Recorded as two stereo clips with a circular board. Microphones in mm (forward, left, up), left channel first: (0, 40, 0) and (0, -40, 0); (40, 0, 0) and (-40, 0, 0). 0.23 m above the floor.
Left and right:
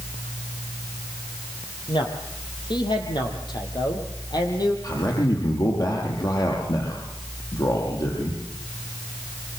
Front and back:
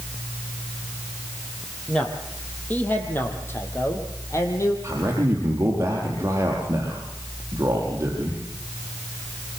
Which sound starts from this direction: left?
A man speaking, at 1.9 s.